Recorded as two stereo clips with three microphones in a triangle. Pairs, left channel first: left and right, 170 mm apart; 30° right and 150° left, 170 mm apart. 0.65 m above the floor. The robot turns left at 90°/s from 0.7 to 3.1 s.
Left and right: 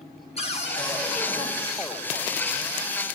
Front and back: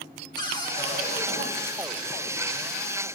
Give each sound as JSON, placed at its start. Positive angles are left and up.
{"t": 0.4, "sound": "a cupboard door", "azimuth_deg": 35, "distance_m": 1.7}